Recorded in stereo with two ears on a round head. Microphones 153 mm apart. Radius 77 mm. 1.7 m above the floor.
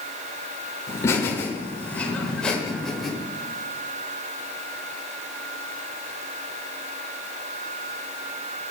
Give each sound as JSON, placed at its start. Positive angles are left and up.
{"t": 0.9, "sound": "laughter", "side_deg": 20, "distance_m": 8.0}